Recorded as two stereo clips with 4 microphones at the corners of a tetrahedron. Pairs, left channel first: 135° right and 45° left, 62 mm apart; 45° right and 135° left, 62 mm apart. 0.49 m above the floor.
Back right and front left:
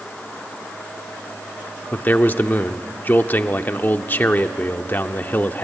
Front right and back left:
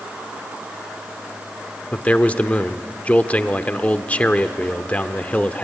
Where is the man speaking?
100° right, 0.9 m.